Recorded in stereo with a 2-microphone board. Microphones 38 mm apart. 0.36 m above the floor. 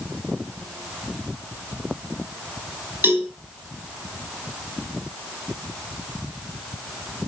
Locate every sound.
3.0 s a cowbell: 65° right (ahead or behind), 3.5 m